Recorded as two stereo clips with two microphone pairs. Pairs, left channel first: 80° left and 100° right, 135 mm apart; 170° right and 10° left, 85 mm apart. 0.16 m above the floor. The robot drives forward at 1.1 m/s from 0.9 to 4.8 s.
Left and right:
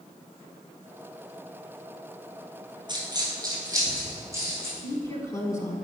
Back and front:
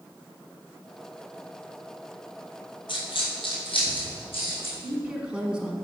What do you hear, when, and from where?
2.9 s a dropped coin: 155° right, 1.5 m; by 4.7 s 170° right, 3.5 m
4.8 s a woman speaking: 70° left, 1.1 m; by 5.8 s 75° left, 1.1 m